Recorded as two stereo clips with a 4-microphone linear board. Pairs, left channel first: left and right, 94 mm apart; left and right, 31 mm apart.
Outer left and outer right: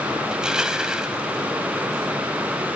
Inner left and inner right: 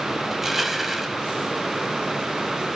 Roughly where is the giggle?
I don't hear a giggle.